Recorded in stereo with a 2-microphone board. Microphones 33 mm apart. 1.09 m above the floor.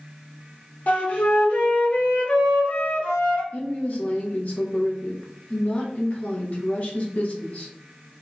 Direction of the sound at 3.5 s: 50° left (ahead or behind).